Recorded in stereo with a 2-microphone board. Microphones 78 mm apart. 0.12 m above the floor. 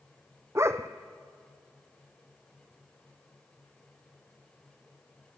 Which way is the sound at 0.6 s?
35° right (ahead or behind).